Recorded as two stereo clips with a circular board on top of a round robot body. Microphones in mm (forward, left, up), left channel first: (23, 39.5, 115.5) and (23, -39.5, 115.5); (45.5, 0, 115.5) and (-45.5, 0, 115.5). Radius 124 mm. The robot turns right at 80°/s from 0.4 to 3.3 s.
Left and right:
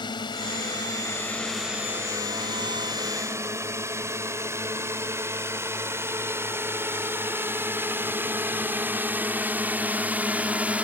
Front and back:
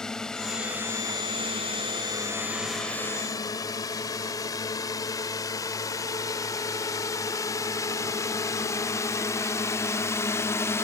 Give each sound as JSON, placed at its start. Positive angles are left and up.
{"t": 0.0, "sound": "a drone", "azimuth_deg": 85}